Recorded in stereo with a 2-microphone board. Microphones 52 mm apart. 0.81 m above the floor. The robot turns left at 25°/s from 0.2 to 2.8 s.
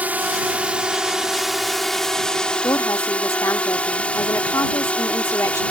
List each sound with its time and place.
0.0 s a drone: 145° right; by 5.7 s 150° left
2.6 s a woman speaking: 75° left (ahead or behind); by 5.6 s 70° left (ahead or behind)